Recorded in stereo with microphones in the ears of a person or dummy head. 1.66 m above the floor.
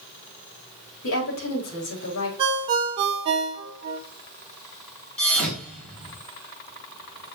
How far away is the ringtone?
About 1.2 m.